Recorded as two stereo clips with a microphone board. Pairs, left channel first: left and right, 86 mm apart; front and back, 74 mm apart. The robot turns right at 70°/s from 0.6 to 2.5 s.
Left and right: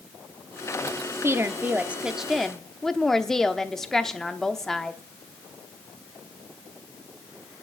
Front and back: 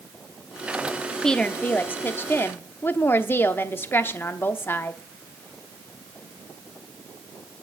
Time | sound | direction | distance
1.2 | a woman speaking | 75° right | 0.8 m